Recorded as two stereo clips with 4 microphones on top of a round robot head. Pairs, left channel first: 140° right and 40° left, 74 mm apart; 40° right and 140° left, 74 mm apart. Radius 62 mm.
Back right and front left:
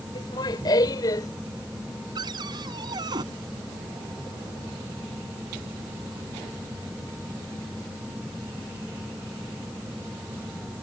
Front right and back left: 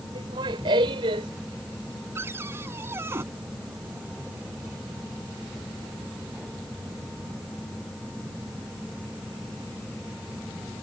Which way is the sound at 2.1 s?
80° left.